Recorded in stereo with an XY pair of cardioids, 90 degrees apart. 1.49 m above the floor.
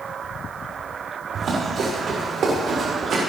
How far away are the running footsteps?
About 7 m.